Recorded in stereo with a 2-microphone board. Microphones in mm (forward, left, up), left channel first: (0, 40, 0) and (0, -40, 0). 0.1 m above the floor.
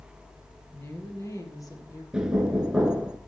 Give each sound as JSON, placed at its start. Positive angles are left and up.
{"t": 0.7, "sound": "a woman speaking", "side_deg": 35, "distance_m": 2.5}
{"t": 2.1, "sound": "knocking", "side_deg": -10, "distance_m": 0.9}